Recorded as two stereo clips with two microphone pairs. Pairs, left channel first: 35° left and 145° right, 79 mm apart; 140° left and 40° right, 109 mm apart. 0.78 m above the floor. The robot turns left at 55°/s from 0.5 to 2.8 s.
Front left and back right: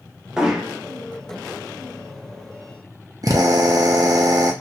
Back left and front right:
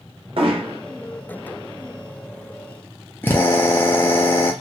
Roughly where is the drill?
Behind right.